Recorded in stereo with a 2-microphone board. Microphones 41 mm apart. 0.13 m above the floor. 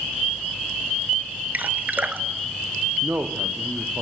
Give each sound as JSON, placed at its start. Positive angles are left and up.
{"t": 1.5, "sound": "dripping", "side_deg": -45, "distance_m": 1.4}
{"t": 3.0, "sound": "a man speaking", "side_deg": -65, "distance_m": 4.0}